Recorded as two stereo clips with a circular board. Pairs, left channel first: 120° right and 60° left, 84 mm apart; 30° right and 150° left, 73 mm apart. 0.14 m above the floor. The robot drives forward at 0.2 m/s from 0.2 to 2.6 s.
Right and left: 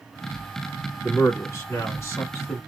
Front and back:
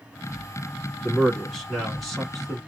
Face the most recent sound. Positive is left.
turn(degrees=-120)